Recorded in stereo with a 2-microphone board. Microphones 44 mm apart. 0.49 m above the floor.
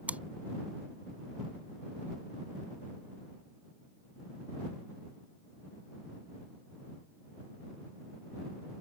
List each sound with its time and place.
0.1 s chewing: 35° right (ahead or behind)